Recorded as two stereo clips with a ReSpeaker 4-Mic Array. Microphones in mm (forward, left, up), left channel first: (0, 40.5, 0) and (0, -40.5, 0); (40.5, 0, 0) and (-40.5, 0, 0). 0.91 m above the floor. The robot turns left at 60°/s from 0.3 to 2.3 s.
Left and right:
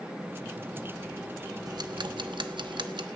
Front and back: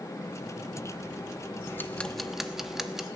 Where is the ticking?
55° right, 1.1 m; by 3.0 s 95° right, 1.1 m.